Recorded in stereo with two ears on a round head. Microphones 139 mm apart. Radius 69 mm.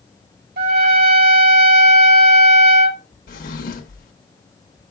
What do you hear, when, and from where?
0.6 s a trumpet: 65° right (ahead or behind), 1.0 m
3.3 s a drawer: 60° left (ahead or behind), 0.7 m